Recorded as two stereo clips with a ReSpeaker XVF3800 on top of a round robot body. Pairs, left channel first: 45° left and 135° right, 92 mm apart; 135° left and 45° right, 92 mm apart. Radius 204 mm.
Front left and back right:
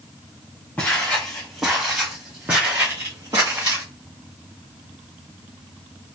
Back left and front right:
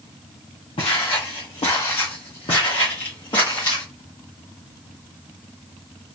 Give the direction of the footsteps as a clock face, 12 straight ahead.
8 o'clock.